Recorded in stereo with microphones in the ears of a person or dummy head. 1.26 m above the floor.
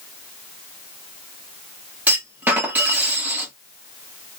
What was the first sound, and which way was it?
A clunk, 10° right (ahead or behind).